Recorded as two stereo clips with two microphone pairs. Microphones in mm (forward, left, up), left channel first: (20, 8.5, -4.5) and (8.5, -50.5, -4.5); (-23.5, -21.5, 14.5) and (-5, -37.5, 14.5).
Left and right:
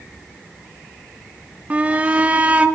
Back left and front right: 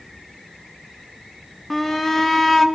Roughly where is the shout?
Behind right.